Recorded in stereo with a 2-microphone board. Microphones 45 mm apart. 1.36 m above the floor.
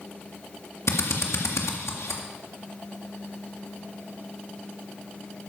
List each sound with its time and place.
0.9 s a drill: 80° left, 2.0 m